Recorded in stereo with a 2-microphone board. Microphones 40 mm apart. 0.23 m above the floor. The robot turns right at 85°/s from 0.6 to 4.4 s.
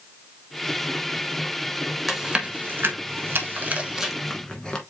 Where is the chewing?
Centre (ahead or behind), 1.0 m; by 4.8 s 20° left (ahead or behind), 1.0 m.